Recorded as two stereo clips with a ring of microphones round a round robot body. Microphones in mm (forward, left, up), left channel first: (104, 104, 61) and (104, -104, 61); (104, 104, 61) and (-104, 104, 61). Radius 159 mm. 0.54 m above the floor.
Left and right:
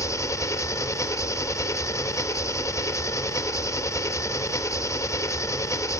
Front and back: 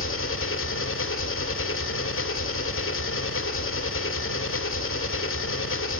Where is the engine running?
15° left, 1.2 m.